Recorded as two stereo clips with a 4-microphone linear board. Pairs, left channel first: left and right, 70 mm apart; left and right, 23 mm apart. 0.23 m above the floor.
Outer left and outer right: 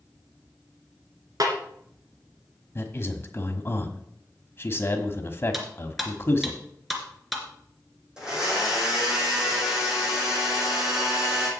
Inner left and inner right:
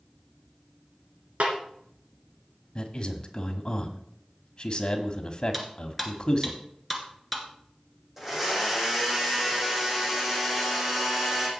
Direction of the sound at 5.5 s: Centre (ahead or behind).